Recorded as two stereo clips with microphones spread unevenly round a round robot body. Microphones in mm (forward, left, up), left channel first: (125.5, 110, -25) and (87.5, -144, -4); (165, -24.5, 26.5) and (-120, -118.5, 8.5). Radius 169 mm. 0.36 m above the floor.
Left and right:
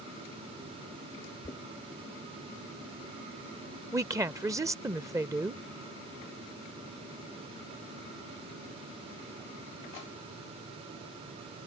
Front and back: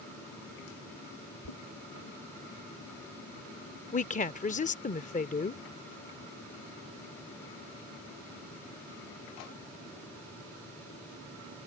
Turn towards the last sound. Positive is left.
turn(degrees=-25)